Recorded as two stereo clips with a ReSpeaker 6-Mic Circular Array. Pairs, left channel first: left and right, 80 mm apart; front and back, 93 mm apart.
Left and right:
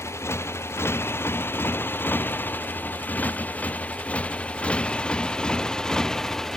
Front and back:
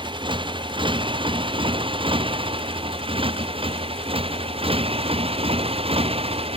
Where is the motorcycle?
145° left; by 6.6 s 175° left.